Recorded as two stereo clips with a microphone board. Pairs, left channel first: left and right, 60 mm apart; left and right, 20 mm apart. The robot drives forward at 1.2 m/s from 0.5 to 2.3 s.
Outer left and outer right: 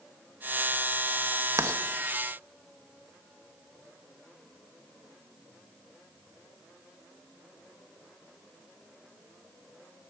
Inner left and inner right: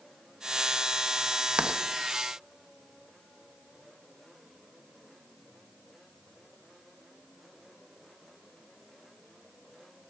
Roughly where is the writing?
Right.